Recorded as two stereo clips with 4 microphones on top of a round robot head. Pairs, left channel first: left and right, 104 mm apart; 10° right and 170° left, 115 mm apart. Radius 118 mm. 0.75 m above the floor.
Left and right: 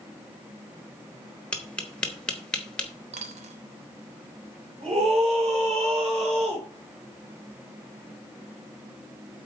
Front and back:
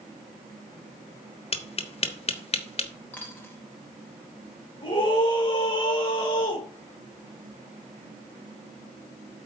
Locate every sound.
1.5 s tapping: 10° left, 1.1 m
3.1 s a dropped coin: 90° right, 1.0 m
4.8 s a scream: 60° right, 3.5 m